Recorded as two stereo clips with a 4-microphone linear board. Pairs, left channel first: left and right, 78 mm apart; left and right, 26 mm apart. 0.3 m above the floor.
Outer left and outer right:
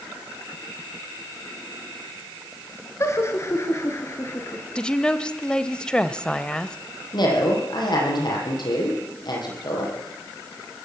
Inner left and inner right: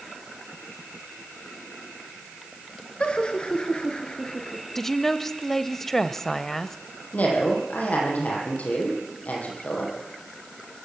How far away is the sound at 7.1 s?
About 9.5 m.